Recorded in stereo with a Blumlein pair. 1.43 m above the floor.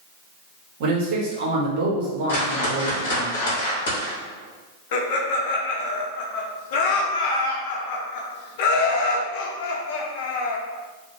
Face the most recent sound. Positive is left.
turn(degrees=50)